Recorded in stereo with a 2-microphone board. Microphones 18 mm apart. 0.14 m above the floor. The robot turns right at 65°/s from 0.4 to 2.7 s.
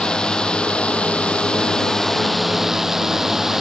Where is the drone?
45° left; by 3.6 s 165° right.